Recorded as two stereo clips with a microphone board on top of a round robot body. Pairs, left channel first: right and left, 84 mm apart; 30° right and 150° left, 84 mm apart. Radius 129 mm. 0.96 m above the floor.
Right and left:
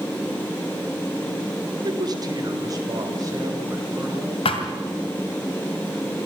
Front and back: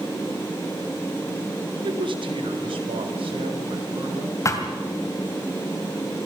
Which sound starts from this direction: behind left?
A man speaking, at 1.8 s.